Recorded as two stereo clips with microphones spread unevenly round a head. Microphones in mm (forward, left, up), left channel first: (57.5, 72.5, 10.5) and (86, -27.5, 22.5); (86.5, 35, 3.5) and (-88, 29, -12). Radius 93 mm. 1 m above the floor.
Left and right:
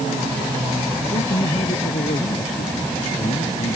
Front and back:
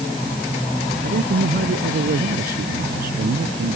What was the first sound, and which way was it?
A man speaking, 145° left.